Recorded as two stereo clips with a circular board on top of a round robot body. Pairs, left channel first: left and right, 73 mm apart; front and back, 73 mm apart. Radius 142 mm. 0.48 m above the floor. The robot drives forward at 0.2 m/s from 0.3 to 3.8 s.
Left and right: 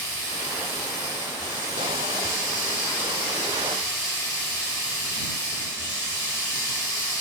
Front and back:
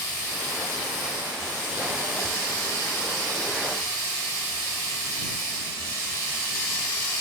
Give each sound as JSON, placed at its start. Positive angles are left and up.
{"t": 0.0, "sound": "running water", "azimuth_deg": 40, "distance_m": 1.9}